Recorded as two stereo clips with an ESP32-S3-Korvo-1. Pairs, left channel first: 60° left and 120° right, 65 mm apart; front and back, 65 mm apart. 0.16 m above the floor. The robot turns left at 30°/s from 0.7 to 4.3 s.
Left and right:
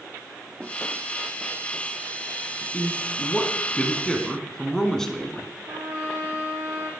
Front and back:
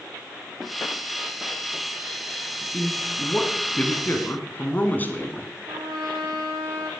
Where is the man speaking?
35° left, 1.1 m; by 5.5 s 15° right, 1.1 m.